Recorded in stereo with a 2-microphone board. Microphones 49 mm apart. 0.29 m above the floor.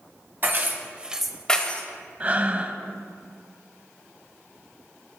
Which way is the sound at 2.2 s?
30° right (ahead or behind).